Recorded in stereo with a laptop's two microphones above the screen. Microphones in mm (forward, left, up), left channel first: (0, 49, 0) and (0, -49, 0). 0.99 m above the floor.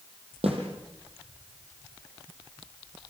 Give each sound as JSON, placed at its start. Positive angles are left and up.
{"t": 0.4, "sound": "a snare drum", "side_deg": -85, "distance_m": 7.5}